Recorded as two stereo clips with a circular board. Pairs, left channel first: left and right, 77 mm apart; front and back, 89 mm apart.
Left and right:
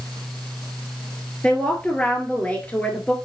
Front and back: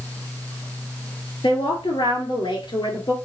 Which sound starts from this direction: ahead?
A woman speaking, at 1.4 s.